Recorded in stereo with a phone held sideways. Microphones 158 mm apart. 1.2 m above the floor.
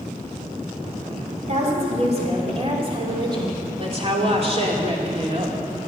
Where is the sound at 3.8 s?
40° right (ahead or behind), 2.5 m.